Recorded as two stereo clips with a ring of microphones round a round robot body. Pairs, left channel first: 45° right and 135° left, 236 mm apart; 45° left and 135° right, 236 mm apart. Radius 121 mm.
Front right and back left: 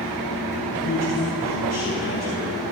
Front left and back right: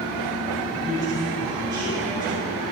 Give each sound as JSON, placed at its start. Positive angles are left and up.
{"t": 0.8, "sound": "a man speaking", "azimuth_deg": -60, "distance_m": 4.5}